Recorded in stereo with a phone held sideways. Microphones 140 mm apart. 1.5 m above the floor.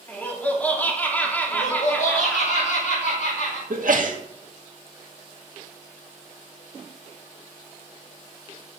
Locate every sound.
0.1 s laughter: 10° left (ahead or behind), 3 m
1.5 s laughter: 70° left (ahead or behind), 4 m
3.7 s a sneeze: 70° right (ahead or behind), 2 m